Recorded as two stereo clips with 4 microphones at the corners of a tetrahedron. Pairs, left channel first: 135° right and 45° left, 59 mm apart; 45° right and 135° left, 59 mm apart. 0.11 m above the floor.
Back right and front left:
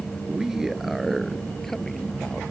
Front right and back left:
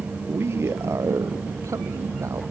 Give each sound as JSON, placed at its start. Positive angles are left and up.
{"t": 0.3, "sound": "a man speaking", "azimuth_deg": 115}